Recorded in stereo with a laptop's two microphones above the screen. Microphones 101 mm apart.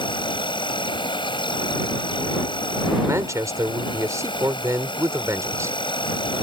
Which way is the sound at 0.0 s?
55° left (ahead or behind).